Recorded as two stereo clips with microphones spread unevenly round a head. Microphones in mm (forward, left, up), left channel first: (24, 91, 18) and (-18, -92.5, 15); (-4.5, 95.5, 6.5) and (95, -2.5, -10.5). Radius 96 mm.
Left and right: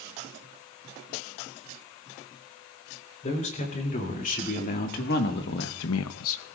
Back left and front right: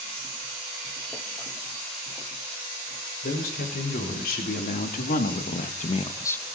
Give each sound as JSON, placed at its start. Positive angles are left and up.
{"t": 3.2, "sound": "a man speaking", "azimuth_deg": 130, "distance_m": 4.0}